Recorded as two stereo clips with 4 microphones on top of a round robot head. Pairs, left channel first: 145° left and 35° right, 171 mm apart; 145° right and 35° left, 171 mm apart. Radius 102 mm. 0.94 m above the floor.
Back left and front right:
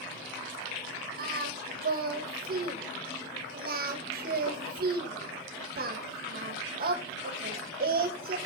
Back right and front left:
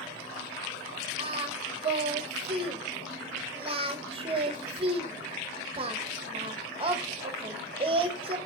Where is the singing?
15° right, 1.5 m.